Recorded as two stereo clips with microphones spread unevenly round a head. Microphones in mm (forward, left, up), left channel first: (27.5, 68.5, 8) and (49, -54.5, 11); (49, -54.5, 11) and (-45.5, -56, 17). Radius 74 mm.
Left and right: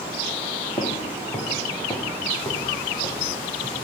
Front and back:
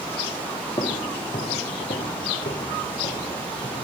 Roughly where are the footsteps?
Ahead left.